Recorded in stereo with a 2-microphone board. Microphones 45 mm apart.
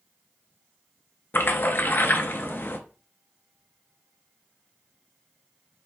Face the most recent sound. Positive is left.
turn(degrees=50)  # may be behind; listen again after turning